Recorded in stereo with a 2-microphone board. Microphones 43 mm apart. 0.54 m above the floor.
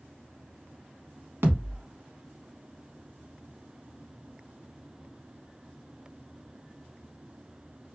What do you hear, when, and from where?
1.4 s a thud: 70° right (ahead or behind), 0.9 m